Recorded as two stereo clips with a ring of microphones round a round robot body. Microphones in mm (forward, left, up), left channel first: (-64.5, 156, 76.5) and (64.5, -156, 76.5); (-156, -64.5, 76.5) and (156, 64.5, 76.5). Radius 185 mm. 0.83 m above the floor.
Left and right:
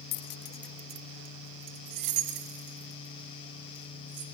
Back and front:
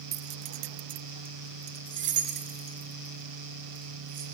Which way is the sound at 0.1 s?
90° left.